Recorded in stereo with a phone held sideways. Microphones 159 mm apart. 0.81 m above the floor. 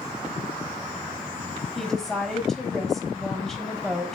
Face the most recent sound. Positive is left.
turn(degrees=5)  # may be behind; listen again after turning